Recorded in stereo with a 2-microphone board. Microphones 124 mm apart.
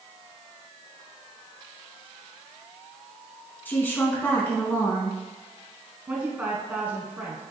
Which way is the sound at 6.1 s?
15° right (ahead or behind).